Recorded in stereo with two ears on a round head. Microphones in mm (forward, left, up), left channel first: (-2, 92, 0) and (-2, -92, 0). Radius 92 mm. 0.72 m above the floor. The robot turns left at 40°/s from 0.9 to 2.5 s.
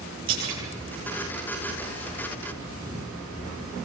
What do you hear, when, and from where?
0.3 s a splash: 65° right (ahead or behind), 9.5 m